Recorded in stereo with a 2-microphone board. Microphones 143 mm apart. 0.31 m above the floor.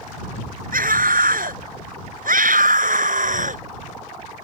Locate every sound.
0.7 s a scream: 75° right (ahead or behind); by 3.6 s 65° right (ahead or behind)